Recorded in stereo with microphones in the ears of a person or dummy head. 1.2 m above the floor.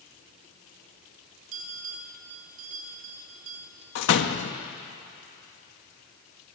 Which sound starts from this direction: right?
A bell, at 1.5 s.